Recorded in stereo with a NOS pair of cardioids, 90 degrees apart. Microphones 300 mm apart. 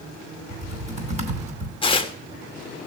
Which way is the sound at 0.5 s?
25° right.